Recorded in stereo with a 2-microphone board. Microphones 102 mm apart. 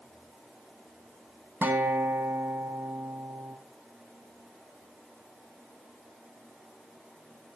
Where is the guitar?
20° right (ahead or behind), 1.3 m.